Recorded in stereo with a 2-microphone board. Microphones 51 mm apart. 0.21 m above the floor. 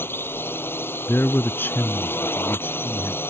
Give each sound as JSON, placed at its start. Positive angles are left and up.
{"t": 0.0, "sound": "a drone", "side_deg": 45}
{"t": 1.1, "sound": "a man speaking", "side_deg": 40}